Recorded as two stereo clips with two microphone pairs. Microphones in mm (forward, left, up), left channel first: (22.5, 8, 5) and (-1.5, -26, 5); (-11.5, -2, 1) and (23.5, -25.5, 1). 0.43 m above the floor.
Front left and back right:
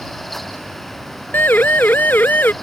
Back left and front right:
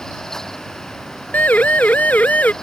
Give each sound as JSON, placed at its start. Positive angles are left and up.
{"t": 1.3, "sound": "a siren", "azimuth_deg": 95}